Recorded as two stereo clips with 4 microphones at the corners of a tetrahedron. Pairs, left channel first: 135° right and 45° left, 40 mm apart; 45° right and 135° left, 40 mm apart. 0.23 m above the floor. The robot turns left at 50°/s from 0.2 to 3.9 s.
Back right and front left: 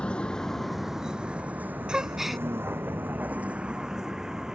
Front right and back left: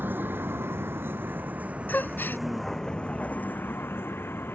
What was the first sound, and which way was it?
A vehicle, 160° left.